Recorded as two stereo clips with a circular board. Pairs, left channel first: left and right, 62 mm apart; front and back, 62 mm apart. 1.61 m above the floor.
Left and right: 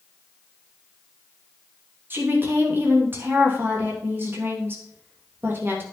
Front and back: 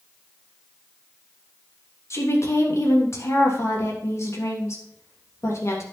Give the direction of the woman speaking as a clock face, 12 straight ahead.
1 o'clock.